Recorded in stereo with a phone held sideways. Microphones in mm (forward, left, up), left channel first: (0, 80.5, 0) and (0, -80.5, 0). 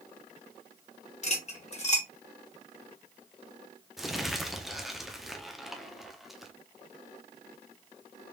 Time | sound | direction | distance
1.2 | cutlery clinking | 45° left (ahead or behind) | 1.0 m
4.0 | crumpling | centre (ahead or behind) | 0.6 m